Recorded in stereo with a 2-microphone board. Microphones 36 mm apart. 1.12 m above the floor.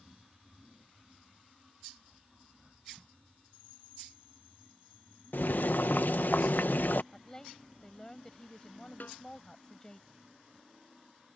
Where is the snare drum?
60° left (ahead or behind).